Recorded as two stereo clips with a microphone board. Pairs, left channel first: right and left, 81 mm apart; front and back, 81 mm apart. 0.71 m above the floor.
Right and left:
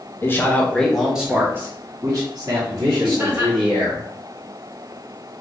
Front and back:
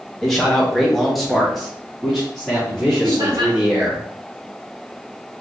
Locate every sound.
0.2 s a man speaking: 85° right, 1.1 m; by 4.0 s 95° left, 2.5 m
3.0 s laughter: 155° left, 1.7 m